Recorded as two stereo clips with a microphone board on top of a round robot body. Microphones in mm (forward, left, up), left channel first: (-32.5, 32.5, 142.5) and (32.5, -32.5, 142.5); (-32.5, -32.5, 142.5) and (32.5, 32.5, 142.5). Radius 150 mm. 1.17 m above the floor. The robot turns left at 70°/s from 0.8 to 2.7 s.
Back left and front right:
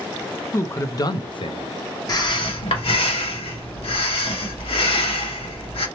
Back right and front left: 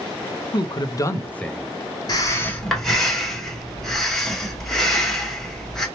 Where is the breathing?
Straight behind, 1.0 m; by 5.9 s 140° left, 1.0 m.